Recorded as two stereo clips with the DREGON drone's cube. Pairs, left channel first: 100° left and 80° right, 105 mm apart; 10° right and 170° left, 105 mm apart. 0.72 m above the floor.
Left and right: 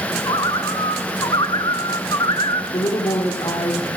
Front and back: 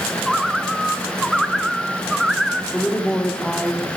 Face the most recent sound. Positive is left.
turn(degrees=70)